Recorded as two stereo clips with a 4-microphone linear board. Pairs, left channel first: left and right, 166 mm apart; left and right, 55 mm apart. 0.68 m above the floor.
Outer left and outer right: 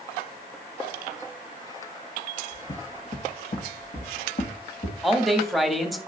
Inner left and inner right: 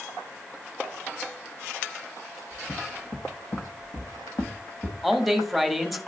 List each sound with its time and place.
2.5 s footsteps: 40° left (ahead or behind), 2.5 m; by 4.9 s 70° left (ahead or behind), 2.5 m
5.0 s a man speaking: centre (ahead or behind), 1.1 m